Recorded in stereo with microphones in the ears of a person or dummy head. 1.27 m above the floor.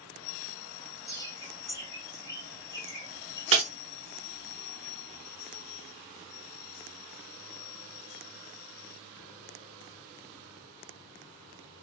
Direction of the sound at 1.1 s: 15° left (ahead or behind).